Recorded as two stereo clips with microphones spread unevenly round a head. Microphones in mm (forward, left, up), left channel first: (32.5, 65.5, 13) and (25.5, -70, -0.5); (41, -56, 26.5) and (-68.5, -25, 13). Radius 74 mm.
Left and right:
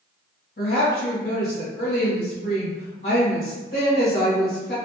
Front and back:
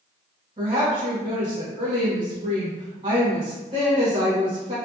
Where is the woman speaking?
120° left, 1.5 m.